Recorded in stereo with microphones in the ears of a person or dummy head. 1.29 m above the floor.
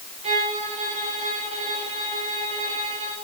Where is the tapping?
No tapping in this recording.